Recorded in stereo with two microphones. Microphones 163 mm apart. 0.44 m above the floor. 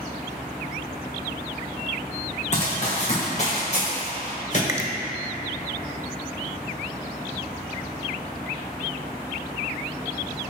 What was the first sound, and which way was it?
Running footsteps, 45° left (ahead or behind).